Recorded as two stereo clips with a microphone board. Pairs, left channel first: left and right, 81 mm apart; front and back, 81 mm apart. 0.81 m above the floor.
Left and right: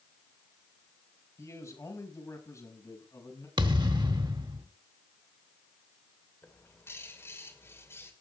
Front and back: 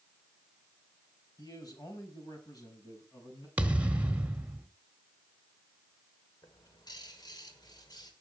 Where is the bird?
30° left, 2.5 m.